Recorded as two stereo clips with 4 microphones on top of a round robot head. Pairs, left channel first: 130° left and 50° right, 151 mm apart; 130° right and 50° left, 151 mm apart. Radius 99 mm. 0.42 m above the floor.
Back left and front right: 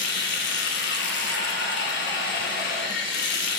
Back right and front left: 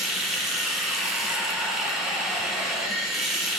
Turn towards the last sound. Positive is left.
turn(degrees=135)